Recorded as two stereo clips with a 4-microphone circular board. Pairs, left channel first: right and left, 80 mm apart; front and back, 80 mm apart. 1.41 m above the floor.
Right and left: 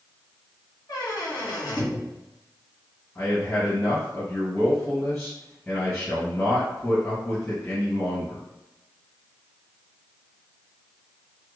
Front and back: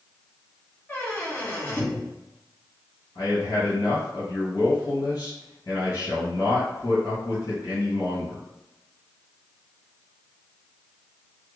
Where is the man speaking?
25° right, 1.7 m.